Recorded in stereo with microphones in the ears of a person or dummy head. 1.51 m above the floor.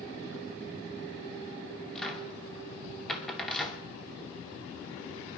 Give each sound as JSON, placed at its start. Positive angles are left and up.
{"t": 1.9, "sound": "a cupboard door", "side_deg": 5, "distance_m": 2.5}